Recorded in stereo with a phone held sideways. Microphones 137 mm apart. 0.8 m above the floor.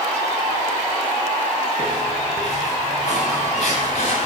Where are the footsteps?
60° left (ahead or behind), 6 m; by 4.3 s 50° left (ahead or behind), 6.5 m.